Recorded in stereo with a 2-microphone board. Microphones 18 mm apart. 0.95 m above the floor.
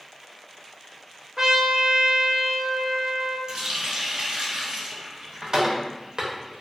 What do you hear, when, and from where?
1.4 s a trumpet: 35° right (ahead or behind), 0.6 m
3.5 s a running tap: 45° right (ahead or behind), 0.5 m